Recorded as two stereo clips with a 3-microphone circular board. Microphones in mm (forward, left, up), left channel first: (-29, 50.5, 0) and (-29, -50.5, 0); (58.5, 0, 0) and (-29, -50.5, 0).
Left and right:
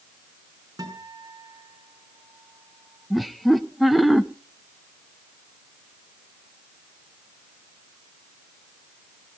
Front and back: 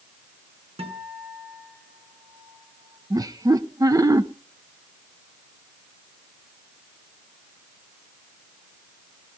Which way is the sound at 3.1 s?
Straight behind.